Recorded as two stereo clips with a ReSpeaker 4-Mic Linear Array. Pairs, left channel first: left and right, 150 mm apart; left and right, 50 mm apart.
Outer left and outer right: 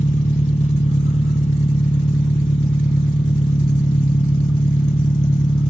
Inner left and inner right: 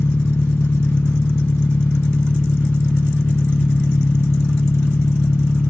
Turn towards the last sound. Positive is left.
turn(degrees=50)  # may be behind; listen again after turning